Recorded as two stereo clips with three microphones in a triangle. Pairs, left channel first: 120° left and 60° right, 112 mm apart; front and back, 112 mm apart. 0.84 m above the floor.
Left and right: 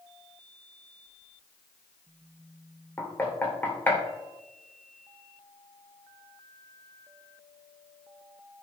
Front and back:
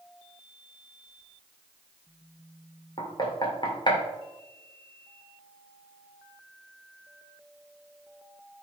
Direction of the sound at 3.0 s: 45° left.